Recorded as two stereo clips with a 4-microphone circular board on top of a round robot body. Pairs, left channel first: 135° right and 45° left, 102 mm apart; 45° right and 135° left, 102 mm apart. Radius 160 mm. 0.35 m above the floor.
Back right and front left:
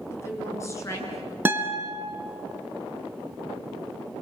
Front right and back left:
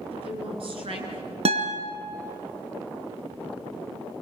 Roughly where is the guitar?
Behind left.